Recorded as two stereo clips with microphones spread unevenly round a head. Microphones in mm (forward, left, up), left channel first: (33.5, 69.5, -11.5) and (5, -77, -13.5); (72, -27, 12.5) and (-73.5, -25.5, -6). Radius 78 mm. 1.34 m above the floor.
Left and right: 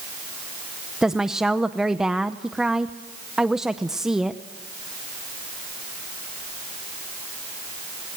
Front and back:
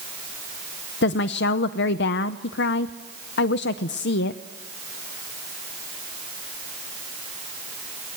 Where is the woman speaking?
15° right, 0.7 m.